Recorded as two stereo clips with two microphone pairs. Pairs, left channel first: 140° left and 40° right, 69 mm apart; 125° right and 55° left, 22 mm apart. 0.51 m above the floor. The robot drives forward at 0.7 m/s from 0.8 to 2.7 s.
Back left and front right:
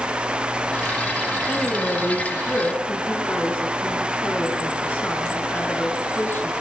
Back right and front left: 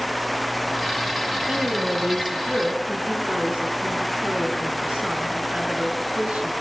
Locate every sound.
1.5 s a woman speaking: 70° left, 7 m; by 6.5 s 80° left, 7 m